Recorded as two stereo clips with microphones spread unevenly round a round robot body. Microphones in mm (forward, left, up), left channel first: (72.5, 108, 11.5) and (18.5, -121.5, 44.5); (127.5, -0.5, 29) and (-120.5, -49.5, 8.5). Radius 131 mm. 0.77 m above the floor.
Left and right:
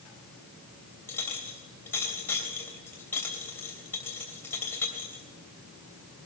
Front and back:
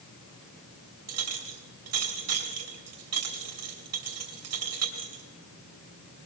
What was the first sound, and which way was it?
A clink, 160° left.